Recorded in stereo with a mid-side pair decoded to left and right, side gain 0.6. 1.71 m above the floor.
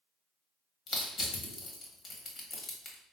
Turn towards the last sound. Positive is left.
turn(degrees=40)